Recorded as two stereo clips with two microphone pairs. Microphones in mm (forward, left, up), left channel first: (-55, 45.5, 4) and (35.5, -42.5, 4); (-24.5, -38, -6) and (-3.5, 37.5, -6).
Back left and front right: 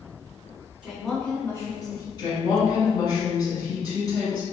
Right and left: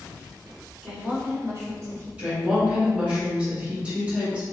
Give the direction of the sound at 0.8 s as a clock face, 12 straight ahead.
11 o'clock.